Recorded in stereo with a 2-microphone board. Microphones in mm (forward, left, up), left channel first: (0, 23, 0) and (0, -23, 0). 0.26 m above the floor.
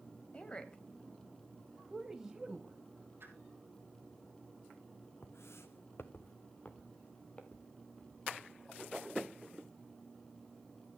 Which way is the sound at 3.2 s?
55° right (ahead or behind).